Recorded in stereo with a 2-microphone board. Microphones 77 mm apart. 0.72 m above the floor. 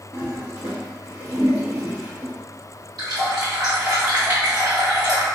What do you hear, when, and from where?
0.1 s a toilet flushing: 35° right (ahead or behind), 1.4 m
3.0 s a running tap: 65° right (ahead or behind), 1.9 m